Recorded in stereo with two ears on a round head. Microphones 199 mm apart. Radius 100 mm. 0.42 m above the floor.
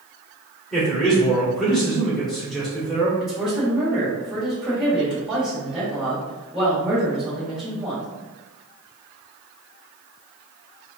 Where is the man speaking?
Centre (ahead or behind), 1.5 m.